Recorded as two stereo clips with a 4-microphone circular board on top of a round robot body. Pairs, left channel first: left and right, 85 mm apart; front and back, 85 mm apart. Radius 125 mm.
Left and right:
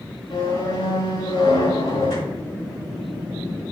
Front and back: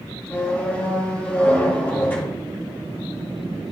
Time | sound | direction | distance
0.3 | a squeak | 65° left | 3.5 m